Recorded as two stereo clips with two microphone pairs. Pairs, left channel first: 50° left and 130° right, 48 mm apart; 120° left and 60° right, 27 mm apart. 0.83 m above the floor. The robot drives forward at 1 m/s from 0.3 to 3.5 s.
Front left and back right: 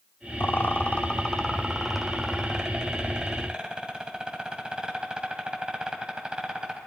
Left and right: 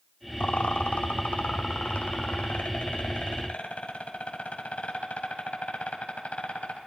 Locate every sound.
0.4 s a rattle: 85° left, 1.2 m; by 6.8 s 160° left, 3.5 m